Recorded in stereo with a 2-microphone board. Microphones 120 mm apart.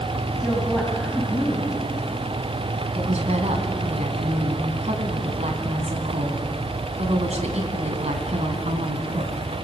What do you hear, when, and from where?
0.4 s a woman speaking: centre (ahead or behind), 3 m
3.0 s a woman speaking: 65° right (ahead or behind), 2.5 m